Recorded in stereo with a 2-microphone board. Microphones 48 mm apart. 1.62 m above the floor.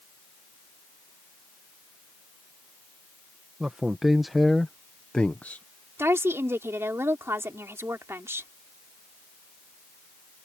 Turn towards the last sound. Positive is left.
turn(degrees=-70)  # may be behind; listen again after turning